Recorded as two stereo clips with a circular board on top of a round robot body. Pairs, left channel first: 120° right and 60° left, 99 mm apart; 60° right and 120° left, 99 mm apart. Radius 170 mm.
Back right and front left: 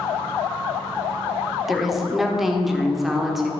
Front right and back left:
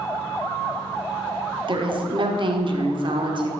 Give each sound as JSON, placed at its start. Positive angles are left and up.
{"t": 1.7, "sound": "a woman speaking", "azimuth_deg": 150, "distance_m": 1.5}